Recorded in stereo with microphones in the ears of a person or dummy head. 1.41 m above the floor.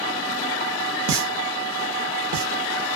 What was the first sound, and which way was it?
A pop, 80° right.